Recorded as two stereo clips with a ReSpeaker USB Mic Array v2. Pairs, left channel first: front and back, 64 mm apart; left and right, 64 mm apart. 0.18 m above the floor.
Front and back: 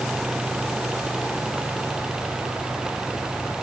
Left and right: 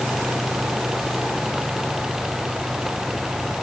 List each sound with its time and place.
Only background noise.